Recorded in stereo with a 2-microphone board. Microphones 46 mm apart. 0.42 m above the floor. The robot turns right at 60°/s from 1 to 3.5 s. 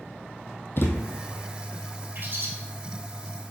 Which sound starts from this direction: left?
A thud, at 0.8 s.